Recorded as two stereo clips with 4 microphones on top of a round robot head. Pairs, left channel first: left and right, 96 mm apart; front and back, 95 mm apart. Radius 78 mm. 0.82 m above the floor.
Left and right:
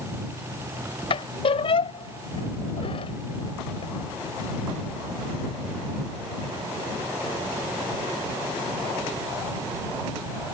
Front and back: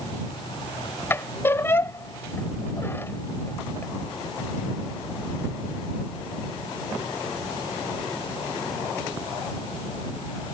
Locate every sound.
1.1 s a squeak: 65° left